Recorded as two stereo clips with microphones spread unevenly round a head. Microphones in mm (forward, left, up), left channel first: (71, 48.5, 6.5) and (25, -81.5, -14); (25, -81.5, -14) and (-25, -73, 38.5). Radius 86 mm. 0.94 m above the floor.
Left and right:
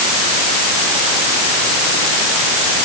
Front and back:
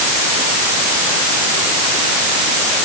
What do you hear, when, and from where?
Only background noise.